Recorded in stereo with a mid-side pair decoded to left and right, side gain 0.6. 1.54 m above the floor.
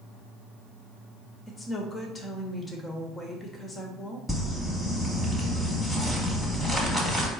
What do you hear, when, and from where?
1.5 s a woman speaking: 20° left, 1.2 m
4.3 s crumpling: 5° left, 1.7 m